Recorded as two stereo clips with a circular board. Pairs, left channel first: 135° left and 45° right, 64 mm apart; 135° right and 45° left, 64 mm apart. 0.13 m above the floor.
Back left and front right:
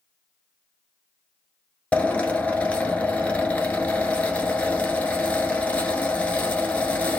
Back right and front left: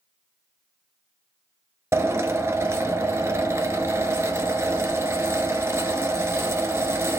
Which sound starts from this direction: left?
A drill, at 1.9 s.